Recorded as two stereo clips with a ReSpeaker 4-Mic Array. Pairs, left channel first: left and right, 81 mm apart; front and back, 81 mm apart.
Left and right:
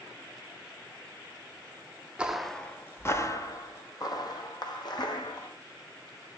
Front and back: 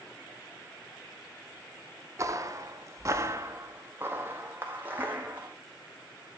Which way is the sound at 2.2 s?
160° right.